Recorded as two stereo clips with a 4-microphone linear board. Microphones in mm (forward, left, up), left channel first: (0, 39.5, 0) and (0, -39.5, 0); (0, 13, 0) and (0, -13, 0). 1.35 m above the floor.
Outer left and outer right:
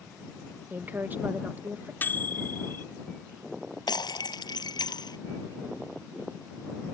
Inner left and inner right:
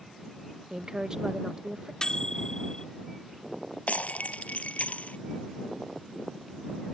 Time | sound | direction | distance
0.7 | a woman speaking | 25° right (ahead or behind) | ?
2.0 | a microwave | 25° left (ahead or behind) | ?
3.9 | breaking glass | 70° left (ahead or behind) | ?